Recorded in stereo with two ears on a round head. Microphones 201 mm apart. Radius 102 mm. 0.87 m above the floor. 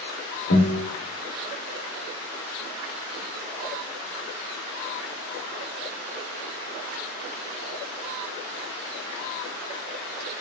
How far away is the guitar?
About 1.3 m.